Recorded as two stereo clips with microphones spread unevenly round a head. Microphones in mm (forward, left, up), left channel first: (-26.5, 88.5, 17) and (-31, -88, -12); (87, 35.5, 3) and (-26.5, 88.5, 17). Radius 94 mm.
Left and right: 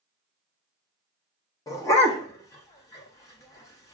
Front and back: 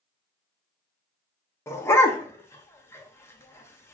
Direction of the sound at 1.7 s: 40° left.